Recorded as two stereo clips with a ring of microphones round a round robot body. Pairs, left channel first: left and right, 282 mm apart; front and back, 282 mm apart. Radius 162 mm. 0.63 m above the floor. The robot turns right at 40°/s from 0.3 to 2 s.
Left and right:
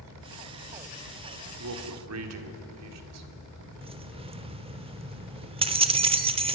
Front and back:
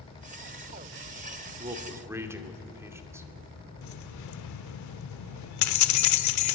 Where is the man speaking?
115° right, 2.5 m; by 3.3 s 100° right, 2.5 m.